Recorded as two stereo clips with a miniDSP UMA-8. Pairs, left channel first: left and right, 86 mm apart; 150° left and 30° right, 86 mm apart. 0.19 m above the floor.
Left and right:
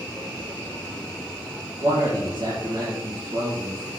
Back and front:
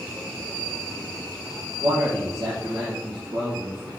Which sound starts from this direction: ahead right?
A man speaking, at 1.8 s.